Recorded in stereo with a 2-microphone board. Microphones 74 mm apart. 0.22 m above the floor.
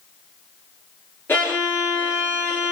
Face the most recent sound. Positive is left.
turn(degrees=30)  # may be behind; listen again after turning